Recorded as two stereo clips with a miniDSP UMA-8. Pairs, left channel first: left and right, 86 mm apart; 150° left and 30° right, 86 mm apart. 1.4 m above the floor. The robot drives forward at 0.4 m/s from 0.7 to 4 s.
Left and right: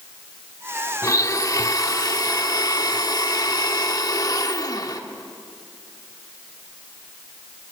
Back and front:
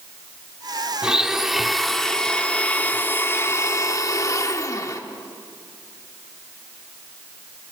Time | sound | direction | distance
1.0 | a blender | 50° left | 1.4 m